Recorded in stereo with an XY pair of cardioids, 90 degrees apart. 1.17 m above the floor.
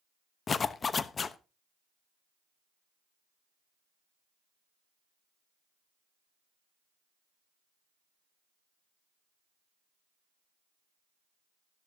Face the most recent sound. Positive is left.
turn(degrees=45)